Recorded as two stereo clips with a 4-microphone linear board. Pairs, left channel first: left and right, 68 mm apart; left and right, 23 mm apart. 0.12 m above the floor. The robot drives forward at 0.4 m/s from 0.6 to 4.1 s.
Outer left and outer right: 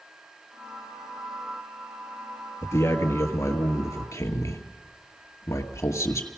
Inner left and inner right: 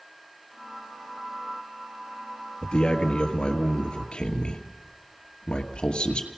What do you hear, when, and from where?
2.6 s a man speaking: 40° left (ahead or behind), 2.5 m; by 6.3 s 45° left (ahead or behind), 2 m